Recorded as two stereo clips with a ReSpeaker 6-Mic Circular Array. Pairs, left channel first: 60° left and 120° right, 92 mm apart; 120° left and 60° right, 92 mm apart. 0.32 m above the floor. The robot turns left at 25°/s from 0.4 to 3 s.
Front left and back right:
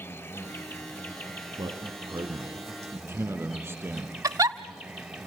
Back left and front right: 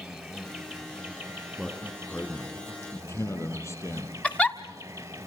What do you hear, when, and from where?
0.0 s an insect: 35° left, 2.5 m; by 5.3 s 30° right, 2.5 m
1.6 s a man speaking: 150° right, 4 m; by 4.1 s 175° left, 4 m
4.2 s a giggle: 165° right, 1.0 m